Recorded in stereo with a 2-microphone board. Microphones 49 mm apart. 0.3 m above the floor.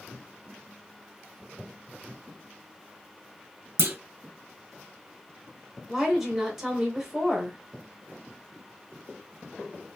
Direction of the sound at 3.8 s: 55° right (ahead or behind).